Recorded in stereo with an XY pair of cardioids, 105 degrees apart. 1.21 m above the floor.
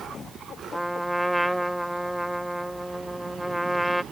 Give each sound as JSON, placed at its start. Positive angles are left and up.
{"t": 0.7, "sound": "a trumpet", "azimuth_deg": 0}